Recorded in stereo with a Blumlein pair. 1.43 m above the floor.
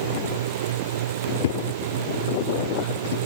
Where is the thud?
60° left.